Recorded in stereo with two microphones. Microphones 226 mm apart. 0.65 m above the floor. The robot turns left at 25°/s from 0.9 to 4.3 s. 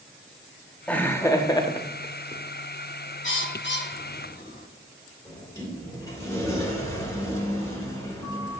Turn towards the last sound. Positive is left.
turn(degrees=10)  # may be behind; listen again after turning